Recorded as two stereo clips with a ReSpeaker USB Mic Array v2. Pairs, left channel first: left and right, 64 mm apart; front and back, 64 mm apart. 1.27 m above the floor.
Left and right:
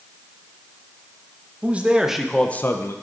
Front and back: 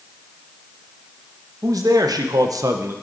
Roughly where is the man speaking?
Behind right.